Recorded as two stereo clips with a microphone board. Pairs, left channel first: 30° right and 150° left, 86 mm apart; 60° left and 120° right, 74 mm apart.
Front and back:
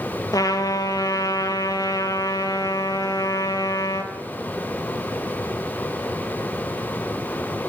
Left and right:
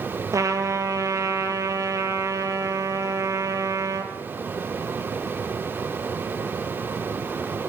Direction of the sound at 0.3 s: 75° right.